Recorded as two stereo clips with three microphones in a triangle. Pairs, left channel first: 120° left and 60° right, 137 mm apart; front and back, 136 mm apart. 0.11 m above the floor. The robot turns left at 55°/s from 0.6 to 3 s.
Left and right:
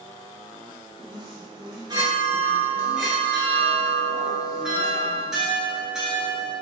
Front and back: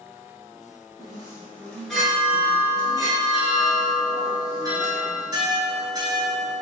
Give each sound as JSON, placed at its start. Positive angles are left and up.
{"t": 1.0, "sound": "a chime", "azimuth_deg": -35, "distance_m": 0.8}